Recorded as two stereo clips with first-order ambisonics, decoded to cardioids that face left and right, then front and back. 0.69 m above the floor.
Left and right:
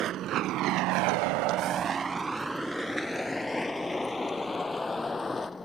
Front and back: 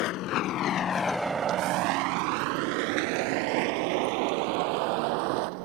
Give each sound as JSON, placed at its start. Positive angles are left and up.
{"t": 0.0, "sound": "a vehicle", "azimuth_deg": -35}